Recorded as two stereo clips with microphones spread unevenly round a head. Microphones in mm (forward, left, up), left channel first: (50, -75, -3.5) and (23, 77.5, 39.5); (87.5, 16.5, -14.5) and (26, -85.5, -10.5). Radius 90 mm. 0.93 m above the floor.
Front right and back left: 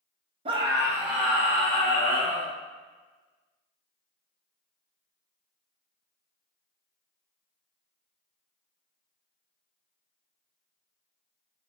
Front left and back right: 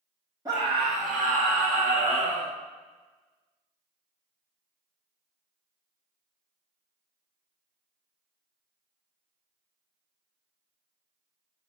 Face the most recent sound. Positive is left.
turn(degrees=-155)